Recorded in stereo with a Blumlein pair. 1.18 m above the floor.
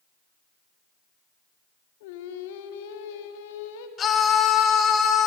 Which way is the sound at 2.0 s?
50° left.